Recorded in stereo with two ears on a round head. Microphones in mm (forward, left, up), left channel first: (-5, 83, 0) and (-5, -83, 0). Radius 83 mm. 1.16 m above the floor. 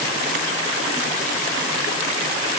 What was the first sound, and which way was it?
Only background noise.